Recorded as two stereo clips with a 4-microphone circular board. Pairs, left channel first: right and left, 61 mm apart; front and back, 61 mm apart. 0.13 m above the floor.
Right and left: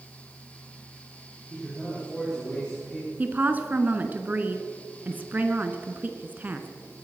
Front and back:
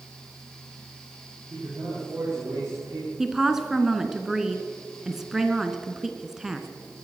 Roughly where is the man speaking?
Behind.